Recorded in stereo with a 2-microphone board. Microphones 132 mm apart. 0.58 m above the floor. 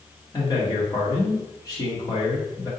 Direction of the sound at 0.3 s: 30° left (ahead or behind).